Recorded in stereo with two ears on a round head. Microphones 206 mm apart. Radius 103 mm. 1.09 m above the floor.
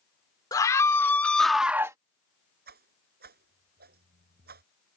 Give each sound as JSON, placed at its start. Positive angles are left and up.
{"t": 0.5, "sound": "a scream", "side_deg": 15}
{"t": 2.7, "sound": "a whoosh", "side_deg": -45}